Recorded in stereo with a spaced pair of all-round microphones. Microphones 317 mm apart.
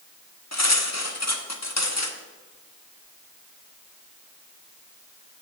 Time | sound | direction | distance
0.5 | cutlery clinking | 55° left (ahead or behind) | 1.0 m